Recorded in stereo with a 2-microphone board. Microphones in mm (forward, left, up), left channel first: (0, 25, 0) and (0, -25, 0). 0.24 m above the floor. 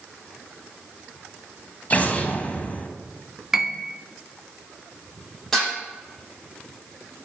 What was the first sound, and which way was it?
An explosion, 30° left (ahead or behind).